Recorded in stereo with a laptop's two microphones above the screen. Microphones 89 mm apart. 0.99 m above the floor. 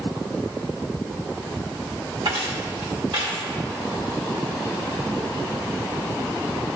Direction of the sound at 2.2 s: 65° right (ahead or behind).